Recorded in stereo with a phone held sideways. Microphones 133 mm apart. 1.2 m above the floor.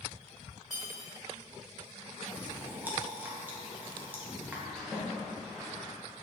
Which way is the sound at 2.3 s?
15° right (ahead or behind).